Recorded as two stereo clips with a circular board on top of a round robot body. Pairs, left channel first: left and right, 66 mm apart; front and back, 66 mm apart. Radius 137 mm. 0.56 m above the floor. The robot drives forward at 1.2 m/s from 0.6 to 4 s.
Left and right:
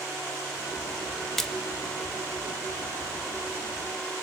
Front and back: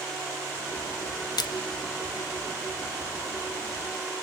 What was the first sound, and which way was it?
A splash, 5° left.